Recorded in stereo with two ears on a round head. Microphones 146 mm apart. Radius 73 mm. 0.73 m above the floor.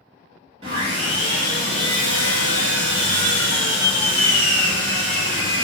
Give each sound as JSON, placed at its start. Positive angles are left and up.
{"t": 0.6, "sound": "sawing", "side_deg": -40, "distance_m": 1.0}